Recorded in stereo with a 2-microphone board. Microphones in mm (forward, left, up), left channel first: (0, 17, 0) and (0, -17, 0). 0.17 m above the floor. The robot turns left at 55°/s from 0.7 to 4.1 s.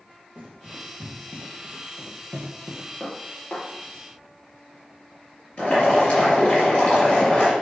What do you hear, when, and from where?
0.3 s running footsteps: 45° right (ahead or behind), 4 m; by 2.9 s 5° left (ahead or behind), 2.5 m
3.0 s dishes clattering: 10° left (ahead or behind), 2.5 m; by 6.0 s 60° left (ahead or behind), 2.5 m
5.6 s boiling: 45° left (ahead or behind), 4 m